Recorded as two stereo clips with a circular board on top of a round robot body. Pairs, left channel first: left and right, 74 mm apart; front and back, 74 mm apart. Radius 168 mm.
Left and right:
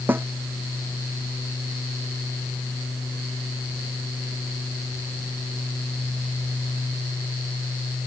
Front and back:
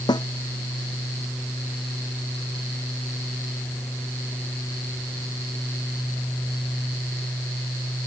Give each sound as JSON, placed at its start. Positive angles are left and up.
{"t": 0.1, "sound": "a snare drum", "azimuth_deg": -25}